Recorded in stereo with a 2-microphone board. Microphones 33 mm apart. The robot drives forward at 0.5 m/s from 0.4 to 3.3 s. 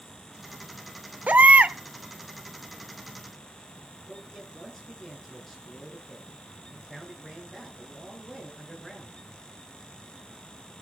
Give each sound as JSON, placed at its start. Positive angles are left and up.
{"t": 1.3, "sound": "a baby crying", "side_deg": -55, "distance_m": 0.9}
{"t": 4.1, "sound": "a man speaking", "side_deg": 5, "distance_m": 7.5}